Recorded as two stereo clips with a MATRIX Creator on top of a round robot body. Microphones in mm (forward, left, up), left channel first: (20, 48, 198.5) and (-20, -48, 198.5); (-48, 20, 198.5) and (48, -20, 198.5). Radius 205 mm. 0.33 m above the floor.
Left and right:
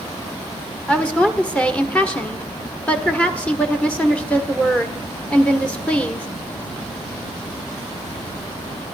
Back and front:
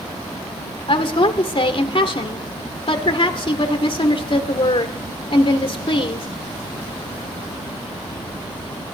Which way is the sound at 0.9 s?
145° left.